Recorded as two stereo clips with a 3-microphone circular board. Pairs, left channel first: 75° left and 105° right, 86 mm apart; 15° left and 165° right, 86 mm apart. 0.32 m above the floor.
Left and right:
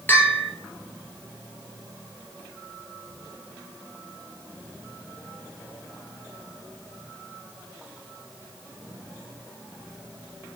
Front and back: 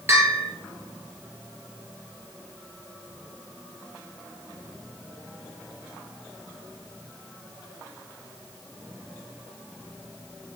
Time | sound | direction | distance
0.1 | a bell | 140° left | 2 m